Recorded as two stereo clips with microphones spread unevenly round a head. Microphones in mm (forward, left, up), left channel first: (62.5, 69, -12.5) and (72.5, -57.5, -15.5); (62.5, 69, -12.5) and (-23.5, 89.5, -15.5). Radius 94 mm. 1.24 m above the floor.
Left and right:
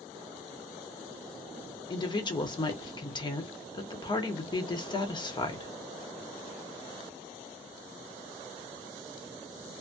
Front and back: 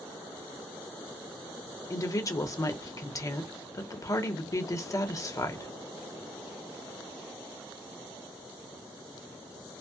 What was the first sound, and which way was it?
A woman speaking, 40° left.